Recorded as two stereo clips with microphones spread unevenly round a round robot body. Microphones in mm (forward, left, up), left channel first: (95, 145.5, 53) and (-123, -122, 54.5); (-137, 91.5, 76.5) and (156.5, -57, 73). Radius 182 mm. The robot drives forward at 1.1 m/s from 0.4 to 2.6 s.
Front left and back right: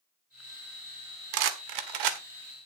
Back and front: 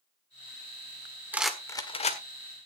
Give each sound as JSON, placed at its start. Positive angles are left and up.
{"t": 1.3, "sound": "a rattle", "azimuth_deg": -110, "distance_m": 1.5}